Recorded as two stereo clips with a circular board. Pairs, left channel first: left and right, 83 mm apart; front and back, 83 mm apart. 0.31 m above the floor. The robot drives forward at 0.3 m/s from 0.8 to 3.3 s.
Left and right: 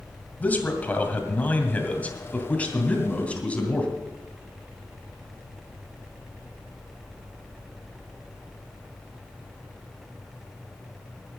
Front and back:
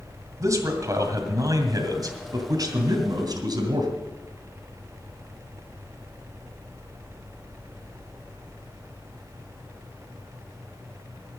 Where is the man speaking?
155° left, 2 m; by 3.9 s 160° left, 2.5 m.